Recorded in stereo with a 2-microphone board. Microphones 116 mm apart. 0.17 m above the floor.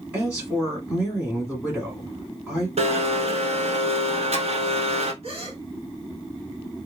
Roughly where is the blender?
Right.